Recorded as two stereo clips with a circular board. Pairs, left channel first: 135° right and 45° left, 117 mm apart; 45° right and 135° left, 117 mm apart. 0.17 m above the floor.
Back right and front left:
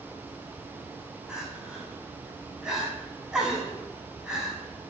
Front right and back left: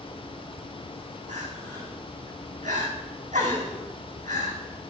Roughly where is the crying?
Behind left.